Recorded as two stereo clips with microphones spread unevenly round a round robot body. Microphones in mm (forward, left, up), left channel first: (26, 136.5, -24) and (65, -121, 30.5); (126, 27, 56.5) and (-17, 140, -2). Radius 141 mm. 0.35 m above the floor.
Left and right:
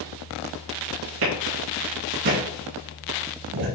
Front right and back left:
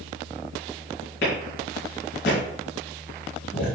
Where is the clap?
95° right, 4 m.